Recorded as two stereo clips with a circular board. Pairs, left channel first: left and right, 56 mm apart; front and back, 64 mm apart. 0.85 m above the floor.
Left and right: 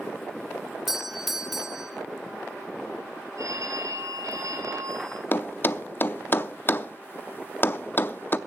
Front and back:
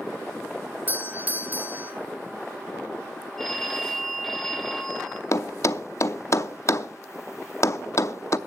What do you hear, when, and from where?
0.9 s a doorbell: 170° right, 1.1 m
3.4 s a phone ringing: 85° right, 2 m
5.3 s a thud: 40° left, 0.6 m